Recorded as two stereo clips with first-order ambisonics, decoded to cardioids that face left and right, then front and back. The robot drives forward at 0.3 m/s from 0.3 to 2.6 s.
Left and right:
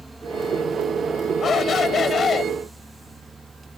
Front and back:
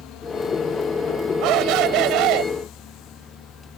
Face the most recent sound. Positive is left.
turn(degrees=155)